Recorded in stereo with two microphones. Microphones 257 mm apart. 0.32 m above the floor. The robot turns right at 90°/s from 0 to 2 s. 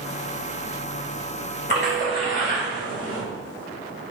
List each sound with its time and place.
1.7 s a splash: 45° left (ahead or behind), 1.1 m; by 3.2 s 35° left (ahead or behind), 1.1 m